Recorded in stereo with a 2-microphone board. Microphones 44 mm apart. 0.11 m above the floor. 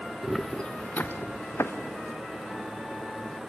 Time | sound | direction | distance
0.2 | footsteps | 5° right (ahead or behind) | 0.9 m